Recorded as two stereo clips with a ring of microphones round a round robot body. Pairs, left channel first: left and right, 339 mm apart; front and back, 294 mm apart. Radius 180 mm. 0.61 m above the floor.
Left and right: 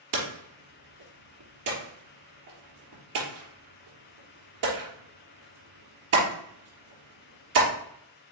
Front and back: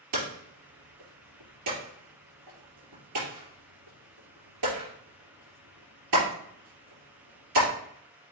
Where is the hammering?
140° right, 3.5 m.